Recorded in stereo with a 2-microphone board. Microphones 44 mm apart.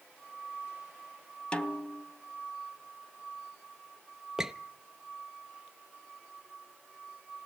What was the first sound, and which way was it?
A snare drum, 25° left (ahead or behind).